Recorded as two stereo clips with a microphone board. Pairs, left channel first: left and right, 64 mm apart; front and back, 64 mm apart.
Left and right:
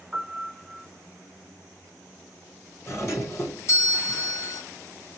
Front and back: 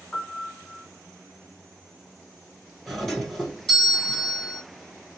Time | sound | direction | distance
0.1 | a piano | 45° right | 1.9 m
2.9 | a doorbell | 85° left | 2 m